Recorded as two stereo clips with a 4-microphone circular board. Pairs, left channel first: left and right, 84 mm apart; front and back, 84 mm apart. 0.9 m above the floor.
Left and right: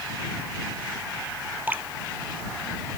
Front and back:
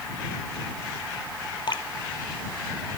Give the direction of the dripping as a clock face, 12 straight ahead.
1 o'clock.